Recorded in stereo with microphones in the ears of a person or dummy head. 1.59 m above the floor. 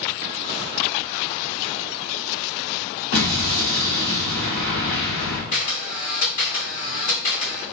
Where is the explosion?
75° left (ahead or behind), 1.6 m.